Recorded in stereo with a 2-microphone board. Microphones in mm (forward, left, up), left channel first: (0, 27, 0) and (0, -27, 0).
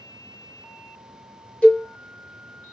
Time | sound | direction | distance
1.6 | a cowbell | 20° left (ahead or behind) | 1.1 m